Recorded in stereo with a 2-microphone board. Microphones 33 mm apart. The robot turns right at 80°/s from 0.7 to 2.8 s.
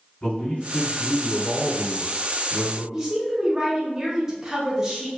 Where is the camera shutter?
No camera shutter in this recording.